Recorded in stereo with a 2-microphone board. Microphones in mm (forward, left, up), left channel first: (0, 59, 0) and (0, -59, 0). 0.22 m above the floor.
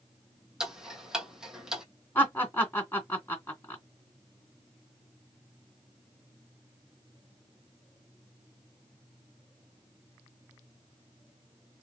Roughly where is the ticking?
Centre.